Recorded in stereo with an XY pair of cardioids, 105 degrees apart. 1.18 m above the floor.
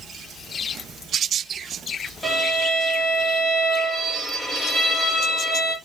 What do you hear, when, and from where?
2.2 s a violin: 10° left, 2 m